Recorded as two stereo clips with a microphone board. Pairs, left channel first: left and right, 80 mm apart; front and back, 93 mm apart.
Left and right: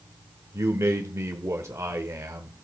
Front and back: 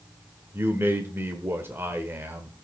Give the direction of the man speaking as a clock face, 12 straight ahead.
4 o'clock.